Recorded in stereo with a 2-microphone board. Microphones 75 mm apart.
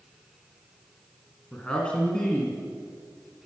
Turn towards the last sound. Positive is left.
turn(degrees=15)  # may be behind; listen again after turning